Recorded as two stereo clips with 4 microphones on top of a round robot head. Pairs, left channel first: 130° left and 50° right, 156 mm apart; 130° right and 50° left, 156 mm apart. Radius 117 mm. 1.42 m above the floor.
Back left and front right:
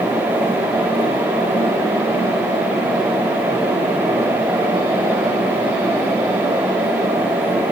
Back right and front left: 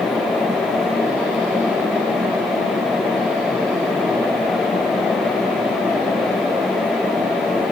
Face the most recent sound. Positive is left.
No sound to turn to.